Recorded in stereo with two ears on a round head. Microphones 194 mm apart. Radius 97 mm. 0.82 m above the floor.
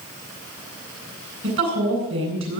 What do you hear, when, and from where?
1.4 s a woman speaking: 60° right (ahead or behind), 10 m